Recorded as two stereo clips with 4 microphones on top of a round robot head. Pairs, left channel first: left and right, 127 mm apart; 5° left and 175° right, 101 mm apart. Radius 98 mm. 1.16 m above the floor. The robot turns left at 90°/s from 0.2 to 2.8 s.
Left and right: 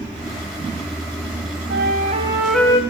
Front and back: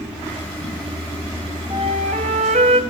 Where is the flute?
105° right, 2.5 m; by 2.8 s 155° left, 2.5 m.